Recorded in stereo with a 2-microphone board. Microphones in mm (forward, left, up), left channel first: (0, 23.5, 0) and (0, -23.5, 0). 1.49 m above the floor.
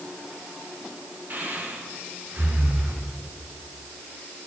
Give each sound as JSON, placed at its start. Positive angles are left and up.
{"t": 1.3, "sound": "breathing", "side_deg": -45, "distance_m": 1.7}